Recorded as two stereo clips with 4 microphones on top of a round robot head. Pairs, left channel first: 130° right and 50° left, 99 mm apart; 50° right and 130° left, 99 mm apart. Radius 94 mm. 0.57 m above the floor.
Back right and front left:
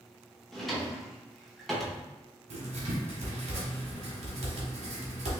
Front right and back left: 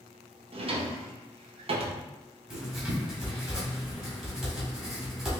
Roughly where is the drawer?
Behind left.